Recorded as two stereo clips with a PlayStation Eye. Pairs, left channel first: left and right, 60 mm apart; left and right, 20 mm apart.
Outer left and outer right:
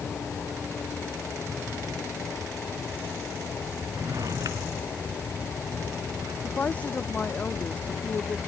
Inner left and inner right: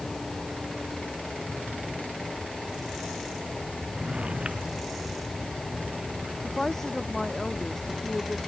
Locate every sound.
3.9 s a drawer: 80° right
6.4 s a woman speaking: 25° left (ahead or behind)